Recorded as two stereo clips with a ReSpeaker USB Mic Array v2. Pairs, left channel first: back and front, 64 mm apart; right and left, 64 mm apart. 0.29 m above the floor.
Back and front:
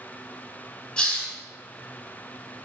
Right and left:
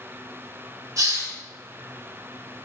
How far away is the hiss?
About 0.6 m.